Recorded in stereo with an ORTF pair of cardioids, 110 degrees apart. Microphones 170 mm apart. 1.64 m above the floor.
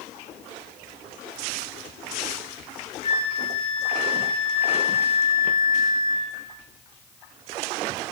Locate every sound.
3.0 s a flute: 45° left, 3 m